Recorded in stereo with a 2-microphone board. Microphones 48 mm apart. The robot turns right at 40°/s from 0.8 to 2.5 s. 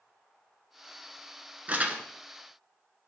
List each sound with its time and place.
1.7 s crumpling: 30° right (ahead or behind), 1.0 m; by 2.0 s 25° right (ahead or behind), 1.0 m